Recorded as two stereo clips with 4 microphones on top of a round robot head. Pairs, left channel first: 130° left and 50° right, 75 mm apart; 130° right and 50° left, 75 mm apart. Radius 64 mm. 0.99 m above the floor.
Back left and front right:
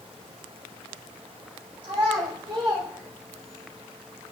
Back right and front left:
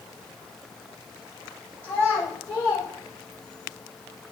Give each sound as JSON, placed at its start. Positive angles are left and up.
{"t": 1.8, "sound": "a child speaking", "azimuth_deg": -70, "distance_m": 4.0}